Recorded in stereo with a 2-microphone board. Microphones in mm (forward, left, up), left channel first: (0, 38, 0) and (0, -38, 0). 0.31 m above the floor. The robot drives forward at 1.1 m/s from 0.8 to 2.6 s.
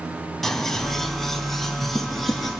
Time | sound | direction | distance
0.4 | scissors | 5° left (ahead or behind) | 1.8 m